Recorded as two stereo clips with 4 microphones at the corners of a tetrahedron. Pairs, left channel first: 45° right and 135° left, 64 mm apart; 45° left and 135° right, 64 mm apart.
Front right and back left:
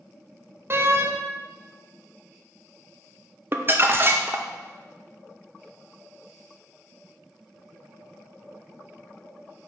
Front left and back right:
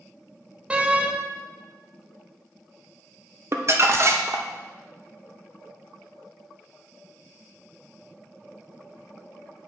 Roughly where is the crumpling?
Behind.